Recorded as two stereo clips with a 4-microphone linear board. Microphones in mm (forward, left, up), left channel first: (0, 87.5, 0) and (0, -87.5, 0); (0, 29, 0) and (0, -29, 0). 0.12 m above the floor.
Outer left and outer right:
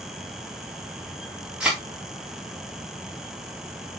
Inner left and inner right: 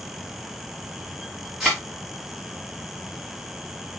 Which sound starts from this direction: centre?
A thud, at 1.6 s.